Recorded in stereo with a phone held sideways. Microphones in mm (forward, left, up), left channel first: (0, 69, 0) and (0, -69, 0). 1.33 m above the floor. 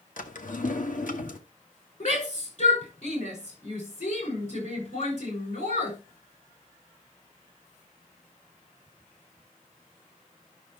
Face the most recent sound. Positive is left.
turn(degrees=60)  # may be behind; listen again after turning